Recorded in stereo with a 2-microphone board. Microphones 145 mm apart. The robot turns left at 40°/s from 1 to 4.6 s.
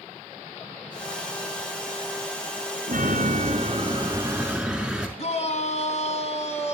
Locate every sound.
2.9 s a chime: 110° right, 4.5 m; by 5.1 s 175° right, 4.5 m
5.2 s a shout: 50° left (ahead or behind), 3 m